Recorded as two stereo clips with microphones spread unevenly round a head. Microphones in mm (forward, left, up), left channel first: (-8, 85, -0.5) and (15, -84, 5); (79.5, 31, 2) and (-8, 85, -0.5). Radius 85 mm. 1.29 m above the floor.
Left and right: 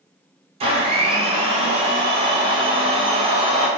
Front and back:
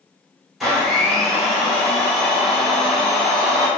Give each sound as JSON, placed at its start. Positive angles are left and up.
{"t": 0.6, "sound": "a blender", "azimuth_deg": -120, "distance_m": 0.6}